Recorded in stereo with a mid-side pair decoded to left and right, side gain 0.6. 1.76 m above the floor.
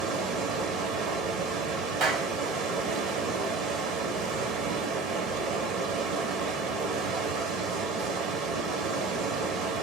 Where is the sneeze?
I don't hear a sneeze.